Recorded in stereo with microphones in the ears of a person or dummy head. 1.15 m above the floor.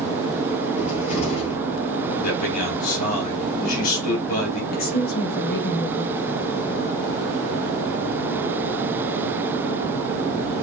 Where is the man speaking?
45° left (ahead or behind), 3 m.